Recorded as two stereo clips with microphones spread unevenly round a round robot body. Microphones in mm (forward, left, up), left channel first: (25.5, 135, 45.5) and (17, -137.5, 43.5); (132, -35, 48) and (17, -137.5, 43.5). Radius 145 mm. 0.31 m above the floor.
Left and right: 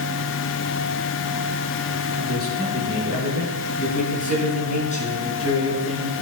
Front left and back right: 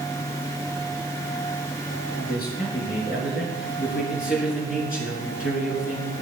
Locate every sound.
2.1 s a man speaking: 35° left, 5.5 m; by 6.1 s 20° left, 3.5 m